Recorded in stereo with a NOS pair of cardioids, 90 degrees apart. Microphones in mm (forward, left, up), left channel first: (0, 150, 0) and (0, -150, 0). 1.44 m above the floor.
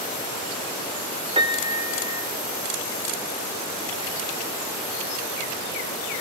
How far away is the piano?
About 1.4 m.